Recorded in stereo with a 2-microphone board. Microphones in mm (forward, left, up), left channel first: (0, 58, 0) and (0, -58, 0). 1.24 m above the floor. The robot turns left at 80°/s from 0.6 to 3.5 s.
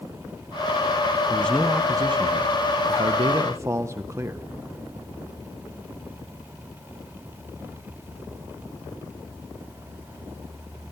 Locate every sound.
1.3 s a man speaking: 25° left, 0.6 m; by 4.5 s 155° right, 0.6 m